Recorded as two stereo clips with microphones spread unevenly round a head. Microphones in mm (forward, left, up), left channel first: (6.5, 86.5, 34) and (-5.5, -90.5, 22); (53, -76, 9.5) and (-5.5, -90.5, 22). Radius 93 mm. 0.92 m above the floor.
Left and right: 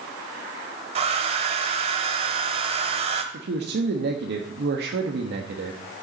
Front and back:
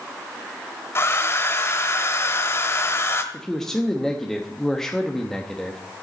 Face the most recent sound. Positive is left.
turn(degrees=-70)